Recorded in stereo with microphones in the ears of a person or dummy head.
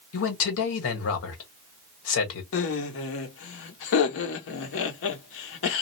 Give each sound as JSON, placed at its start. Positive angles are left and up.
{"t": 0.1, "sound": "a man speaking", "side_deg": 75, "distance_m": 1.4}
{"t": 2.5, "sound": "laughter", "side_deg": 70, "distance_m": 1.2}